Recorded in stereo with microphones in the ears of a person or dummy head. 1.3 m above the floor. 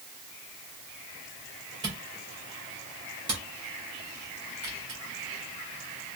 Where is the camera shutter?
25° right (ahead or behind), 1.7 m.